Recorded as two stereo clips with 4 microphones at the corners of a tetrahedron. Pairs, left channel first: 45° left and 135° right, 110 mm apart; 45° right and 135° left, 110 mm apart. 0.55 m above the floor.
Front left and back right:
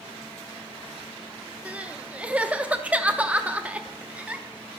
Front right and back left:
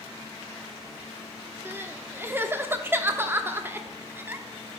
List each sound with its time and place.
1.6 s crying: 165° left, 0.7 m